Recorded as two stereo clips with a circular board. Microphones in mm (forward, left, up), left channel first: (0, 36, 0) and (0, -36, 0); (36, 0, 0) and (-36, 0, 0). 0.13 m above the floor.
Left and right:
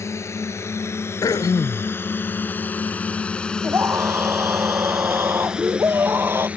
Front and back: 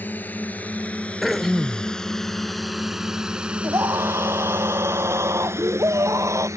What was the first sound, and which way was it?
A drone, 55° left.